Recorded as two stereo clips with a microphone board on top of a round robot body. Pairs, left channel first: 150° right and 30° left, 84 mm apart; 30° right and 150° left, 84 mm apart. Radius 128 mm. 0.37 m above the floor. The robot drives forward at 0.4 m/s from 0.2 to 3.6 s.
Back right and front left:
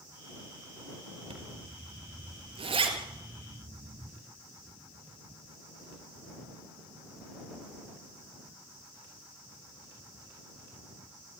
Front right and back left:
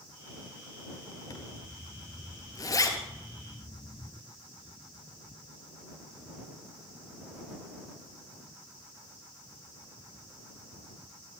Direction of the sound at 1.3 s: 15° left.